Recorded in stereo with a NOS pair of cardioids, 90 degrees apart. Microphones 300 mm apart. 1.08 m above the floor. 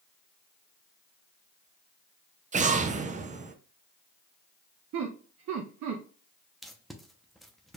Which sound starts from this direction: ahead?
Tape being pulled, at 6.6 s.